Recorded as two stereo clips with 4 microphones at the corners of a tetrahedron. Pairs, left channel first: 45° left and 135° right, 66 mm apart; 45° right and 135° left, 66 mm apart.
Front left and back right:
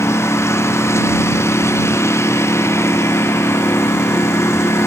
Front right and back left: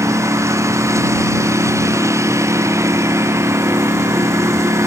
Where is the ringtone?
No ringtone in this recording.